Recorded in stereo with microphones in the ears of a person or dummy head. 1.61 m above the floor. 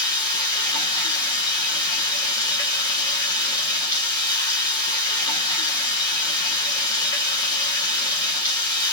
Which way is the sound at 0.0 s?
20° left (ahead or behind).